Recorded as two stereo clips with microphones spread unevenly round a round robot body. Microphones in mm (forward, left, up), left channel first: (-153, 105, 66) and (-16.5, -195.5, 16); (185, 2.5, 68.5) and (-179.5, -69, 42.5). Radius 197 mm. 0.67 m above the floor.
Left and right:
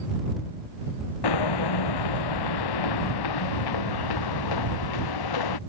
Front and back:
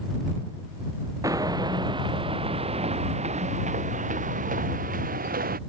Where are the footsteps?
110° left; by 5.6 s 120° left.